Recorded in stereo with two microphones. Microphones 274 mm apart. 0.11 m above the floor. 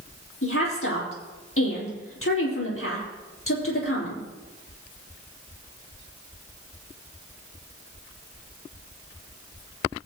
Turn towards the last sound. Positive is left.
turn(degrees=50)  # may be behind; listen again after turning